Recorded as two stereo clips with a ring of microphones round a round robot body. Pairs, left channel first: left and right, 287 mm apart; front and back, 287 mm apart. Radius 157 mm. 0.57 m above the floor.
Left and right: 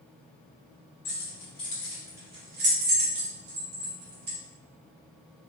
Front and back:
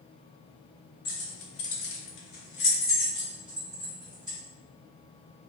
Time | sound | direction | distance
1.1 | keys jangling | 35° left | 1.3 m